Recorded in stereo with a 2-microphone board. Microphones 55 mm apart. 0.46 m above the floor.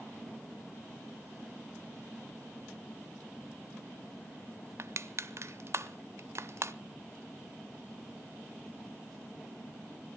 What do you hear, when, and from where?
4.8 s crushing: 55° right (ahead or behind), 0.8 m